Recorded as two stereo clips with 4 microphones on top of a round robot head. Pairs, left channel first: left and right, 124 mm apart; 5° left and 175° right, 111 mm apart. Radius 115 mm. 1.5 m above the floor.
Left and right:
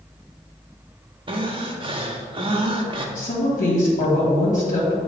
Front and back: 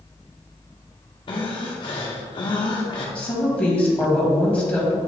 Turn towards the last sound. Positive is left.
turn(degrees=80)